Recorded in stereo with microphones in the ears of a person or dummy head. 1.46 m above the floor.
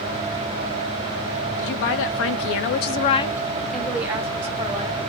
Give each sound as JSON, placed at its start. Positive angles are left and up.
{"t": 1.6, "sound": "a woman speaking", "side_deg": 70, "distance_m": 1.0}